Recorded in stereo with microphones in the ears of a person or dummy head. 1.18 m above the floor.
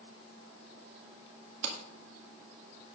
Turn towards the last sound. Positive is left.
turn(degrees=-75)  # may be behind; listen again after turning